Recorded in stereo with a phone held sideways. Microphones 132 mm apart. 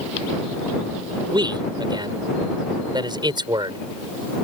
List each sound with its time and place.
1.3 s a man speaking: 35° right (ahead or behind)